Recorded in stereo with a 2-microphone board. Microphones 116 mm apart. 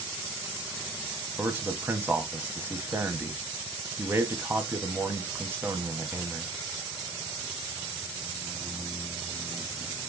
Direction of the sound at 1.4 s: 20° right (ahead or behind).